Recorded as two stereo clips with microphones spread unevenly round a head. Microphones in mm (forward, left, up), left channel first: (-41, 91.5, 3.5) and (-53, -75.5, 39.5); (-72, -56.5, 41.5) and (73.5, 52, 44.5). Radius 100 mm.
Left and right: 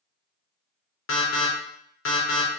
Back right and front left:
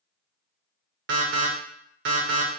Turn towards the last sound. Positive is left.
turn(degrees=65)